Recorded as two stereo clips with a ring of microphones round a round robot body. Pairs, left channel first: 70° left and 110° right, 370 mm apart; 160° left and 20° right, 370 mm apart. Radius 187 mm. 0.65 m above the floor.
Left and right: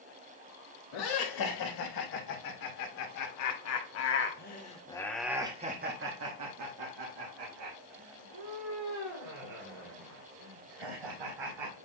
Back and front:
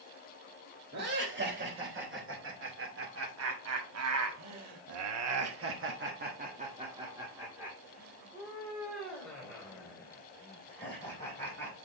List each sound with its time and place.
0.9 s laughter: 40° left, 3.5 m; by 11.8 s 120° right, 4.5 m